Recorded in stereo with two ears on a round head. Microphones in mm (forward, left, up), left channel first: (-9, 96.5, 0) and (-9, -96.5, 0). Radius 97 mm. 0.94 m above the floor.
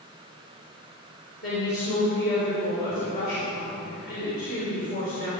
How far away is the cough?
I don't hear a cough.